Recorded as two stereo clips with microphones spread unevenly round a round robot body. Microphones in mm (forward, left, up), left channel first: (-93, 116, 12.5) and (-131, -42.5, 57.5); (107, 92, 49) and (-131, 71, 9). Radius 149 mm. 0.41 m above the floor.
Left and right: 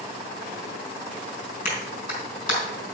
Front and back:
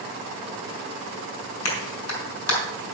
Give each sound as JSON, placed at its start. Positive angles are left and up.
{"t": 1.6, "sound": "a clap", "azimuth_deg": 25, "distance_m": 4.0}